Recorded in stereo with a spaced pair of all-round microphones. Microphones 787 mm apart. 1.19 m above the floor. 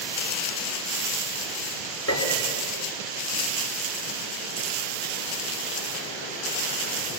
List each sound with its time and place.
2.1 s a piano: 15° left (ahead or behind), 4 m